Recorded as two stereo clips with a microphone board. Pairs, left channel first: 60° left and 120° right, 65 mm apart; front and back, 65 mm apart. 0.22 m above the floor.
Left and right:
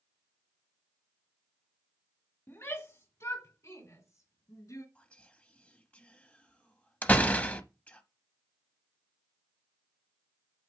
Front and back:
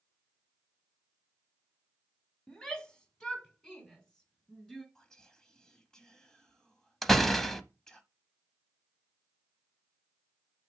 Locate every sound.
2.5 s a shout: 70° left, 1.3 m; by 4.8 s 75° left, 2.5 m
5.0 s whispering: 60° left, 1.0 m
7.0 s a door slam: 80° left, 0.7 m